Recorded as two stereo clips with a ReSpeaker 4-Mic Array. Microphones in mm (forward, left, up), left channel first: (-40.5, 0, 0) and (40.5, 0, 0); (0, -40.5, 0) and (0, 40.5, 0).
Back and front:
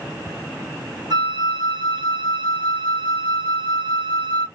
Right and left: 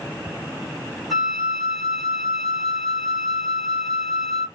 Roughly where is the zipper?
No zipper in this recording.